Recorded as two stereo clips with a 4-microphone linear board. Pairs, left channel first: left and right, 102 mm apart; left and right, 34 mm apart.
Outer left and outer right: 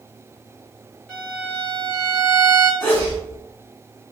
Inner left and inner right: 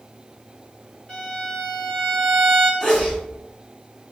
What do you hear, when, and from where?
1.1 s a violin: 15° left (ahead or behind), 1.5 m
2.8 s a sneeze: 20° left (ahead or behind), 1.9 m